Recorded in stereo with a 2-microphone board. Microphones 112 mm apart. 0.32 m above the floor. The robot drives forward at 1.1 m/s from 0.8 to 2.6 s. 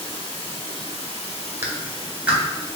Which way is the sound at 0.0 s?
50° left (ahead or behind).